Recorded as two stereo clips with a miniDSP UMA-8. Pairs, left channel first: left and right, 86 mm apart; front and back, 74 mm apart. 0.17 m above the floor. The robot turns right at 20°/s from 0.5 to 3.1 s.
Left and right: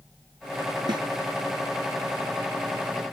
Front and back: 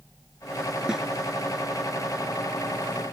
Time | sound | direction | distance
0.9 | a snare drum | 100° right | ?